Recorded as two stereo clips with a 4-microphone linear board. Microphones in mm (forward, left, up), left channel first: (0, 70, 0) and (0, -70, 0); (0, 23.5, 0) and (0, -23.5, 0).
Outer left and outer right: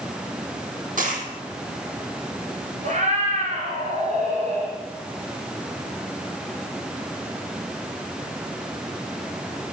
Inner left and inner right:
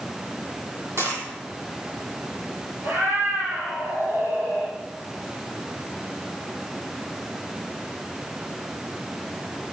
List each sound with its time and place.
1.0 s a dropped coin: 70° right (ahead or behind), 3.5 m
2.8 s a cat meowing: 55° right (ahead or behind), 4 m